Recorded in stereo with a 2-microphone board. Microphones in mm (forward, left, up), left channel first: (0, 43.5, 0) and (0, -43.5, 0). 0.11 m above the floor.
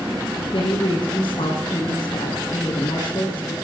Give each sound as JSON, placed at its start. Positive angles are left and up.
{"t": 0.5, "sound": "a woman speaking", "side_deg": 60, "distance_m": 2.5}